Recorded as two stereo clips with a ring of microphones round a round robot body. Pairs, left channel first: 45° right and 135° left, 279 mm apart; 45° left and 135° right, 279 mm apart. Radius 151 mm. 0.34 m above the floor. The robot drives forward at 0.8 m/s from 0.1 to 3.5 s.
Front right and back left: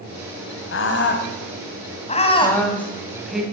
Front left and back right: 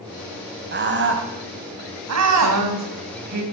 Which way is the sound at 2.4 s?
125° right.